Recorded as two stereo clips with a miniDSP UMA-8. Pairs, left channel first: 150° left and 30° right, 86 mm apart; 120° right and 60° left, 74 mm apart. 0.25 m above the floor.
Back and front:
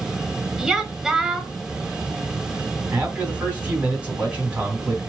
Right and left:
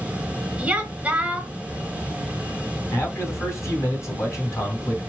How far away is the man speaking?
About 2 m.